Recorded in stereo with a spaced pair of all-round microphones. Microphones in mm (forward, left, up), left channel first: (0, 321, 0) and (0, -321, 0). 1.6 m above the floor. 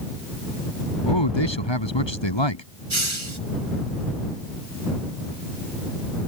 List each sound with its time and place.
1.1 s a man speaking: 40° left (ahead or behind)
2.9 s a hiss: 45° right (ahead or behind)